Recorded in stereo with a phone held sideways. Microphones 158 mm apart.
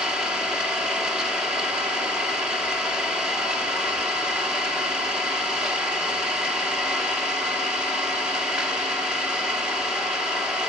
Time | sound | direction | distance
0.0 | an engine running | 5° right (ahead or behind) | 1.3 m